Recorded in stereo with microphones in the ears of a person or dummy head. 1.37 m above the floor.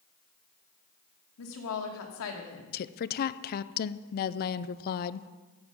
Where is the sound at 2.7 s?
50° left (ahead or behind), 0.6 m.